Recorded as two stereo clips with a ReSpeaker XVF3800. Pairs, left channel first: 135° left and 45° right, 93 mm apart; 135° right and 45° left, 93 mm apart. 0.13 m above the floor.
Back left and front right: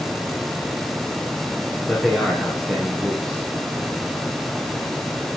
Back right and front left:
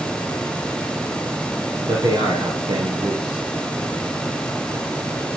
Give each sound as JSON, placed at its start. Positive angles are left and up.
{"t": 1.8, "sound": "a man speaking", "azimuth_deg": 50, "distance_m": 2.5}